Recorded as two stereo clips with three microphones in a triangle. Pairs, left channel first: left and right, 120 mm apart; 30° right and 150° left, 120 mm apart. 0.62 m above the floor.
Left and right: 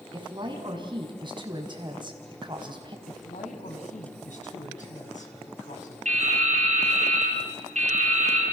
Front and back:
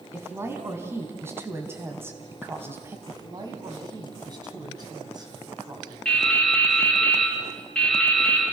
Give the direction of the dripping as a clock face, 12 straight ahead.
4 o'clock.